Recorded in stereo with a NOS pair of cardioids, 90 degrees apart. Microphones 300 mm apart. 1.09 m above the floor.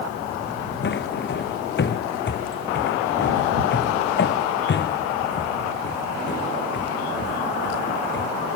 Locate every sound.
0.8 s footsteps: 40° left